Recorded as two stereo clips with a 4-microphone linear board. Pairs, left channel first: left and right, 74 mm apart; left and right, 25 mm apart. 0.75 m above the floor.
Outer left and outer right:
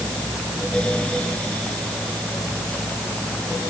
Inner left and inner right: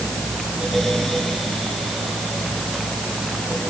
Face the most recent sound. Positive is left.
No sound to turn to.